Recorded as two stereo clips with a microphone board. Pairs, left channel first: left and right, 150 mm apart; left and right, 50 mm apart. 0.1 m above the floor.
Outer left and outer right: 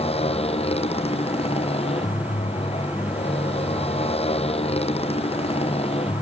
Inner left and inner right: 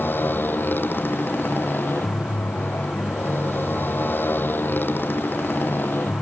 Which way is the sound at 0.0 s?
40° left (ahead or behind).